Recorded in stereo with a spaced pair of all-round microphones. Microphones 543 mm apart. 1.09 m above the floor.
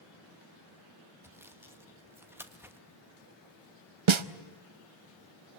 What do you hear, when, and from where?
1.2 s sawing: 5° right (ahead or behind), 1.3 m
4.1 s a snare drum: 60° right (ahead or behind), 0.7 m